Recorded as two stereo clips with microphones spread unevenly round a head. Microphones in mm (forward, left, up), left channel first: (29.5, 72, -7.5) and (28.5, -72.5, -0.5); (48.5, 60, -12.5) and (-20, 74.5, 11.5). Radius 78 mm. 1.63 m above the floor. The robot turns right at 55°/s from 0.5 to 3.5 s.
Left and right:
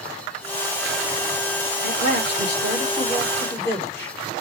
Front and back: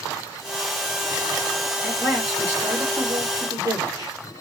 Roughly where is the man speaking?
Left.